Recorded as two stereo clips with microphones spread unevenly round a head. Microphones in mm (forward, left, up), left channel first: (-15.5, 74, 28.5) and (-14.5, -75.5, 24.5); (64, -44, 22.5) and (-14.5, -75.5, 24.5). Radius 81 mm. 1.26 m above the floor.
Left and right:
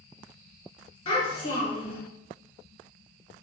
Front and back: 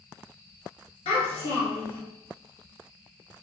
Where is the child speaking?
35° left, 1.5 m.